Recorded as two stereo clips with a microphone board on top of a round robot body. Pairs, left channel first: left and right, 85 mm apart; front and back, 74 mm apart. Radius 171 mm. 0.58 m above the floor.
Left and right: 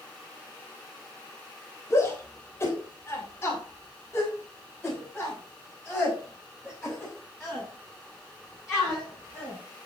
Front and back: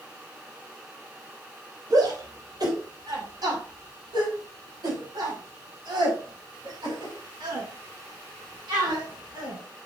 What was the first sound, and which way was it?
A shout, 155° left.